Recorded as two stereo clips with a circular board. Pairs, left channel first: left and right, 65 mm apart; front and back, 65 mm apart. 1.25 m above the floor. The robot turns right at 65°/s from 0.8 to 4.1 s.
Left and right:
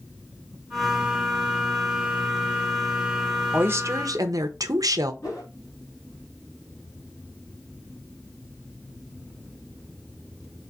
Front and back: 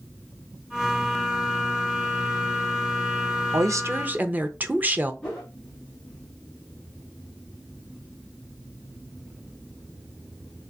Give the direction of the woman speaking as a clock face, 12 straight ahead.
5 o'clock.